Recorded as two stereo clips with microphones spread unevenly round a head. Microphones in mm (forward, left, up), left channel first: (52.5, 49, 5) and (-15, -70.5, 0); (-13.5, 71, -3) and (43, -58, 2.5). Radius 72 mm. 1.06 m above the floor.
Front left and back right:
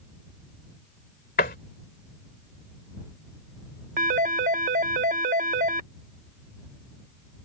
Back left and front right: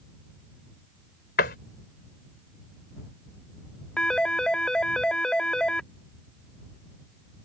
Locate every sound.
1.4 s a door slam: 95° left
4.0 s a phone ringing: 160° right